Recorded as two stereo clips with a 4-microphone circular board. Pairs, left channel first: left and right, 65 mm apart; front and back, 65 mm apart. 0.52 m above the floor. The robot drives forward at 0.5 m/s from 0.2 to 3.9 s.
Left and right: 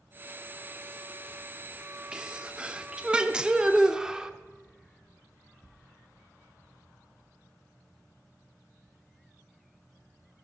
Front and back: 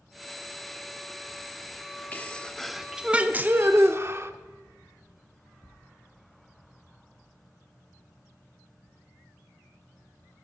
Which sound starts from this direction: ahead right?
A sneeze, at 2.1 s.